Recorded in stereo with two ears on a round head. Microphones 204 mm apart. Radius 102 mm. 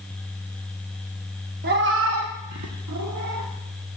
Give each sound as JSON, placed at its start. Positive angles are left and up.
{"t": 1.6, "sound": "a cat meowing", "side_deg": -40, "distance_m": 0.9}